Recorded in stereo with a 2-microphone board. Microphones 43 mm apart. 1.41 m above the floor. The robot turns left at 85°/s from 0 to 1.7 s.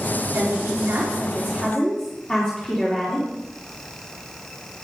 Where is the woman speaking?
80° right, 4 m; by 3.4 s 165° left, 4 m.